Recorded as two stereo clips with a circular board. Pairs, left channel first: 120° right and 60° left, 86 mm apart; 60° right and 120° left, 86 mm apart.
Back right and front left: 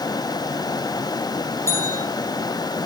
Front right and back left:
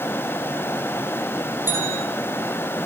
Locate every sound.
1.7 s a bell: 175° right, 2.5 m